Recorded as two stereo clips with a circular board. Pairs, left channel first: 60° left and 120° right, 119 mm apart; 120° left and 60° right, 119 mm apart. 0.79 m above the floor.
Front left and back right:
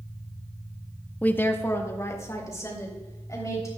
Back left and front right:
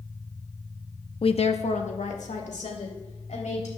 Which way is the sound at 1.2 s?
135° left.